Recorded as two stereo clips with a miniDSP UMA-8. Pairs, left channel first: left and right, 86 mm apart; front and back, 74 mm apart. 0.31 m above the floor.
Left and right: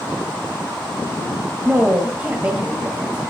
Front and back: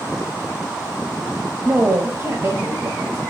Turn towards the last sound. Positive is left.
turn(degrees=-150)